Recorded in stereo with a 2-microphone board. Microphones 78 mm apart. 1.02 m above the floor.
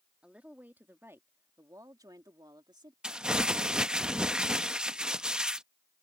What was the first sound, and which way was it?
A woman speaking, 15° right (ahead or behind).